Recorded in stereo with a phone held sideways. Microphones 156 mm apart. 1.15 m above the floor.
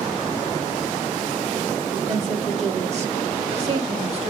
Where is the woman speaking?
50° right (ahead or behind), 3 m; by 4.3 s 45° right (ahead or behind), 1.8 m.